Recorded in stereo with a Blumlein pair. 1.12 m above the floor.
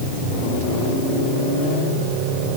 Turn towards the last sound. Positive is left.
No sound to turn to.